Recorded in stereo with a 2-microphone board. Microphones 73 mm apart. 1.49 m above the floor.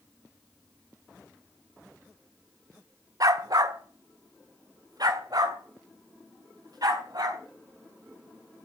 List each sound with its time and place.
3.2 s a dog barking: 55° right (ahead or behind), 1.6 m; by 7.4 s 60° right (ahead or behind), 5.5 m